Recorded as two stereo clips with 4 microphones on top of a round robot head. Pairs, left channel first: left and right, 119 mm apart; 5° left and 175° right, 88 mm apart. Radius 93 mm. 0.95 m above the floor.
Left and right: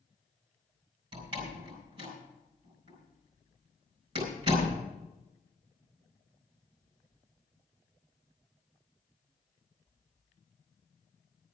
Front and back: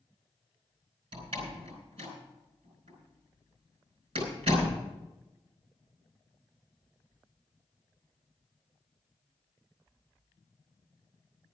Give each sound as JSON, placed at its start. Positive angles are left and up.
{"t": 1.1, "sound": "a door slam", "azimuth_deg": -140, "distance_m": 4.5}